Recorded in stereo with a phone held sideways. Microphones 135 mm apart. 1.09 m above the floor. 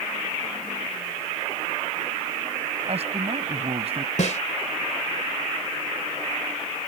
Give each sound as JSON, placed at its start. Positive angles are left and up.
{"t": 2.9, "sound": "a man speaking", "side_deg": -50}
{"t": 4.2, "sound": "a snare drum", "side_deg": 65}